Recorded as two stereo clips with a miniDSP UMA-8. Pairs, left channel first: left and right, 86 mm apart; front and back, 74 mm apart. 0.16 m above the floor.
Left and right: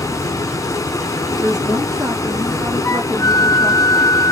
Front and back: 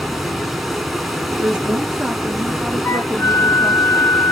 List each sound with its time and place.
0.0 s running water: 90° left, 0.9 m
1.4 s a woman speaking: 110° right, 1.5 m
2.9 s a flute: 50° left, 0.6 m